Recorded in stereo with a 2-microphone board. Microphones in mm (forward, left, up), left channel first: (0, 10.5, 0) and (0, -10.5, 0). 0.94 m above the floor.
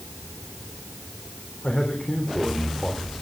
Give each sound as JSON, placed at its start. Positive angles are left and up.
{"t": 1.6, "sound": "a man speaking", "side_deg": 55, "distance_m": 4.0}